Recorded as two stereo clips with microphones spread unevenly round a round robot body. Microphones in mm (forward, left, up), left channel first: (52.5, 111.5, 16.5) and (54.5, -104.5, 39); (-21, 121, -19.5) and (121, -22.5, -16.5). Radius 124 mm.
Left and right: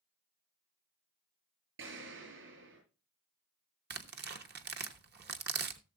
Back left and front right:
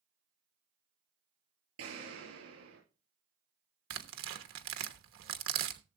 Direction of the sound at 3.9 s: 50° right.